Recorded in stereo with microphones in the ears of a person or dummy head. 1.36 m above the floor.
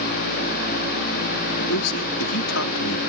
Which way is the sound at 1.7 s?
85° left.